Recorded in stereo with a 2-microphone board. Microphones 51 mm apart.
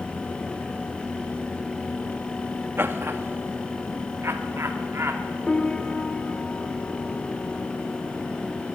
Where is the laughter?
45° right (ahead or behind), 1.2 m; by 5.3 s 60° right (ahead or behind), 1.9 m.